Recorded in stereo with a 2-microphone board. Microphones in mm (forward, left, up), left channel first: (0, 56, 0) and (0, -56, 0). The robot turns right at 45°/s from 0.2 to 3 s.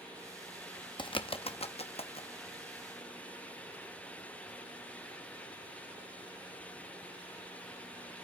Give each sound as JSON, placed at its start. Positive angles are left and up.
{"t": 1.0, "sound": "a bird", "side_deg": 45, "distance_m": 0.6}